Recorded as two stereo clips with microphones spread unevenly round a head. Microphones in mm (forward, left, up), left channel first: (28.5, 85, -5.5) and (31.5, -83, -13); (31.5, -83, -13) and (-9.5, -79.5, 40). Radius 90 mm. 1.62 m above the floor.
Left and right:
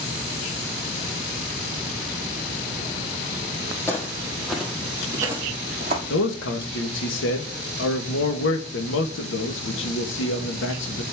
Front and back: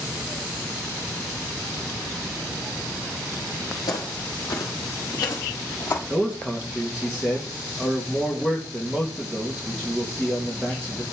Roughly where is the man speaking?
Left.